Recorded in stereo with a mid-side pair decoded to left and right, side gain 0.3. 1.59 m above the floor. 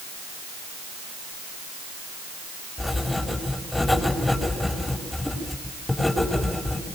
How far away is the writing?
About 6.5 m.